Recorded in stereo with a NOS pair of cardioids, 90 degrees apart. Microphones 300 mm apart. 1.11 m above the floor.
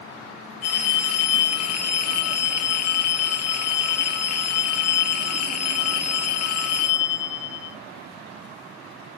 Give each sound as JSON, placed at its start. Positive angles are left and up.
{"t": 0.6, "sound": "a phone ringing", "azimuth_deg": 55, "distance_m": 0.9}